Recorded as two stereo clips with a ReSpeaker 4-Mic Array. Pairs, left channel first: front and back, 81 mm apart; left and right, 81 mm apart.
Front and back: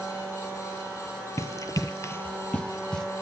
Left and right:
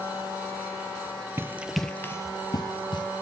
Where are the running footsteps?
40° right, 0.7 m; by 3.0 s 80° left, 1.2 m.